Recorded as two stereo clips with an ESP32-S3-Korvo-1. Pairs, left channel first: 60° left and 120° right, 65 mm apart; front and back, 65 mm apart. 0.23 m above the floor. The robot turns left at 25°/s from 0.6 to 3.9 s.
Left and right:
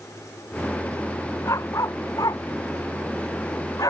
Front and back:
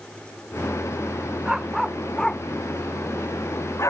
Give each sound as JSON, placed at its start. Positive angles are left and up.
{"t": 1.4, "sound": "a dog barking", "azimuth_deg": 100}